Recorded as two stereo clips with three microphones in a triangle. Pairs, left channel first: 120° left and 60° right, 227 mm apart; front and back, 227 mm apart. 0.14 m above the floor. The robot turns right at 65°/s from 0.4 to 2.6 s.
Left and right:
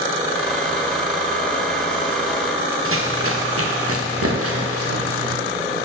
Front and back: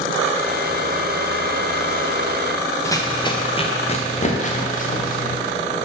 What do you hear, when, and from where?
2.9 s running footsteps: 75° right, 1.3 m; by 5.4 s 55° right, 2.5 m